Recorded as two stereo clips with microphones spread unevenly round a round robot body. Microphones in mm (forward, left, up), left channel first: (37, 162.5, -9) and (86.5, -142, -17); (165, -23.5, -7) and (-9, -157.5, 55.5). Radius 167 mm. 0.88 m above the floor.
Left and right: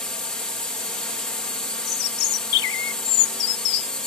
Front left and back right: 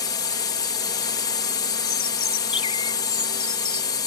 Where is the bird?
115° left.